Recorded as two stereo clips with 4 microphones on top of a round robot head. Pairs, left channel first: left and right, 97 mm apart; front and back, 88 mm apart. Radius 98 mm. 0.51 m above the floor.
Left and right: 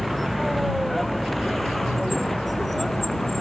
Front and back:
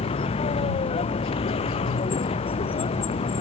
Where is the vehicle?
Straight ahead; by 3.4 s 5° left.